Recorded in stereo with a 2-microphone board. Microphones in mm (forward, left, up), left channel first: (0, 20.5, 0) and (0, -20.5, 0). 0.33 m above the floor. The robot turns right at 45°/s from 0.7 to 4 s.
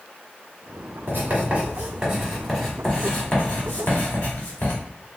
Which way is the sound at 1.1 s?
55° right (ahead or behind).